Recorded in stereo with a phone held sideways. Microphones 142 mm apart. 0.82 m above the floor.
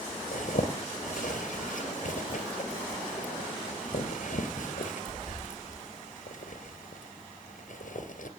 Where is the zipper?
65° left (ahead or behind), 2.5 m.